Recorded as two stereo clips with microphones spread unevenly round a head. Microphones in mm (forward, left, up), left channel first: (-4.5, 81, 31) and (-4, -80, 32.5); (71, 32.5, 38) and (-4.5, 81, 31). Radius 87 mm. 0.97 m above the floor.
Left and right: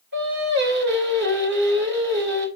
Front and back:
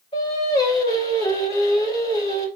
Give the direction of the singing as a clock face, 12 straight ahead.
3 o'clock.